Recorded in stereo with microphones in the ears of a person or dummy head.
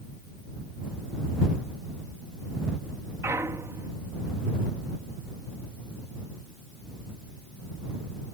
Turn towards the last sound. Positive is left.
turn(degrees=-10)  # may be behind; listen again after turning